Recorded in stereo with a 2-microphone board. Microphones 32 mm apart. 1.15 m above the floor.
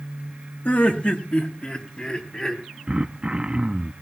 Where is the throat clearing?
30° right (ahead or behind), 0.7 m.